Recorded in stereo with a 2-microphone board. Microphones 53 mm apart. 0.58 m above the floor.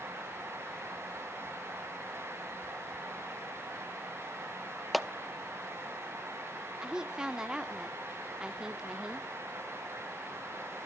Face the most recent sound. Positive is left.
turn(degrees=-15)  # may be behind; listen again after turning